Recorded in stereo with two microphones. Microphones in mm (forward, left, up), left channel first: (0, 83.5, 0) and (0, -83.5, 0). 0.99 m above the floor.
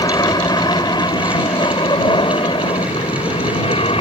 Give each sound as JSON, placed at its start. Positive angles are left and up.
{"t": 0.0, "sound": "an aircraft", "side_deg": 25}